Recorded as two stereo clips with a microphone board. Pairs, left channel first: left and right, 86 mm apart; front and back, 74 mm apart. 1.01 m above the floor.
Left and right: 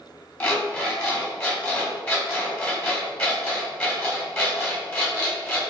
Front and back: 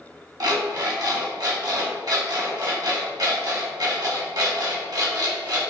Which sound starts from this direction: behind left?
An alarm clock, at 0.4 s.